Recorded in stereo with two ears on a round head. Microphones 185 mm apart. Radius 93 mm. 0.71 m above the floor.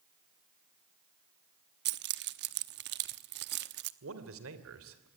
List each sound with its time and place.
1.9 s keys jangling: 55° right (ahead or behind), 0.9 m
4.0 s a man speaking: 75° right (ahead or behind), 3 m